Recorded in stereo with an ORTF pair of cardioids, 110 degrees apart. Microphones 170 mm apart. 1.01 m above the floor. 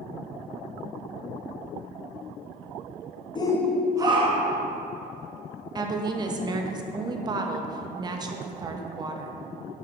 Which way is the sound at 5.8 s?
25° right.